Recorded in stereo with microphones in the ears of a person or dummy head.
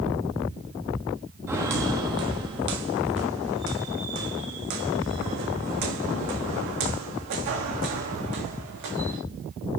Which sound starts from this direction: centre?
Footsteps, at 1.5 s.